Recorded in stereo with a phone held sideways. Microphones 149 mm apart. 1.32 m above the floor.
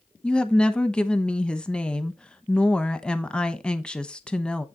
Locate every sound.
0.2 s a woman speaking: 5° left (ahead or behind), 0.9 m